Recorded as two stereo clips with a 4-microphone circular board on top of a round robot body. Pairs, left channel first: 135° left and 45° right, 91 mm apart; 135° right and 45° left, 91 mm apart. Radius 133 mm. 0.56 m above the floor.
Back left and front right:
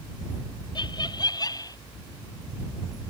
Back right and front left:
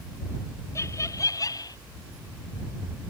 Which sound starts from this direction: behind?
Laughter, at 0.8 s.